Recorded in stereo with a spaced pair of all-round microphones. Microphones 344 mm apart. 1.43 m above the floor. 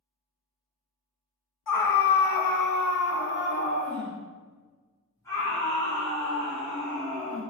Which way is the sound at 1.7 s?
65° left (ahead or behind).